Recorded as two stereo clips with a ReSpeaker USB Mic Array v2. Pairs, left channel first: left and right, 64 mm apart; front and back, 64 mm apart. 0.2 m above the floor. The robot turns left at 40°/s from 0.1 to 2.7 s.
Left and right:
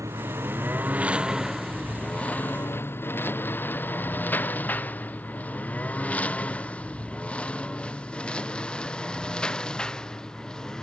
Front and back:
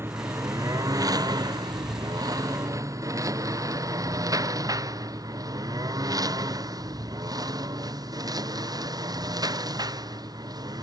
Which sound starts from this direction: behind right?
A lawn mower, at 0.0 s.